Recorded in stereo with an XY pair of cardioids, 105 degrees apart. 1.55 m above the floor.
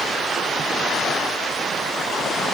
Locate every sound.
Only background noise.